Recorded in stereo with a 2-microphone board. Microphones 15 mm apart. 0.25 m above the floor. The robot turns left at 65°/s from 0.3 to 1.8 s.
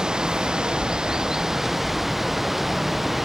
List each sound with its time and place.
0.0 s running water: 70° right; by 3.2 s 170° right